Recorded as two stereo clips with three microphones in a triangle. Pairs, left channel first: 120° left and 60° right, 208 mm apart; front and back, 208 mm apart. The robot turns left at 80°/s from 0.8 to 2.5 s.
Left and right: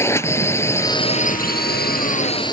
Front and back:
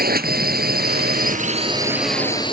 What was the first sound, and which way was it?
A drone, 165° right.